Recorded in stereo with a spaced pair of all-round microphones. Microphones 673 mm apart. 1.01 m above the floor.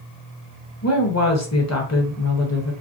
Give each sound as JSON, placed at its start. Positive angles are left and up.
{"t": 0.8, "sound": "a woman speaking", "side_deg": 25, "distance_m": 0.8}